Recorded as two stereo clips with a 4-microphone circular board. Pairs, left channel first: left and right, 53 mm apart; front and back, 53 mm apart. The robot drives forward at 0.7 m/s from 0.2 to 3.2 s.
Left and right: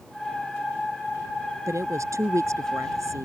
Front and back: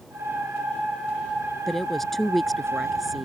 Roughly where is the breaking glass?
I don't hear breaking glass.